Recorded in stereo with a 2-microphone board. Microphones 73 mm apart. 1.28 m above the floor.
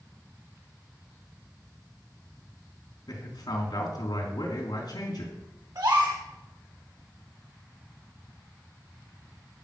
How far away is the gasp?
About 4 m.